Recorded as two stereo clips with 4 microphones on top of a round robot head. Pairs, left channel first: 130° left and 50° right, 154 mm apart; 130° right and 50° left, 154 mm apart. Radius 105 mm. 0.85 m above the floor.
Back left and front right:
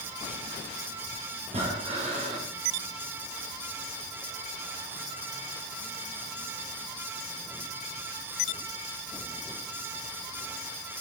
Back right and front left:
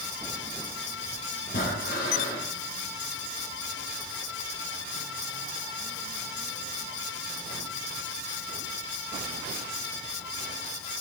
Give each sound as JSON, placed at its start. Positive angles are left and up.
{"t": 1.5, "sound": "breathing", "azimuth_deg": -100, "distance_m": 4.0}